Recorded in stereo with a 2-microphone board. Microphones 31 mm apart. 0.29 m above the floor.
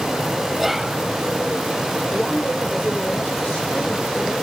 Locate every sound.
0.6 s whispering: centre (ahead or behind), 1.3 m
2.1 s a woman speaking: 65° left (ahead or behind), 9.5 m